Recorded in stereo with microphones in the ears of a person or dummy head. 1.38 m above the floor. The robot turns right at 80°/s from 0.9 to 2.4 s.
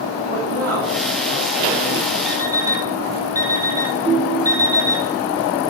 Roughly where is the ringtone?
Left.